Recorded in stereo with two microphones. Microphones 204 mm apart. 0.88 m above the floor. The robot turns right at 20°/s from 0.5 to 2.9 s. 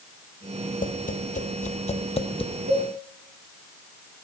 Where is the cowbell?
55° right (ahead or behind), 1.3 m.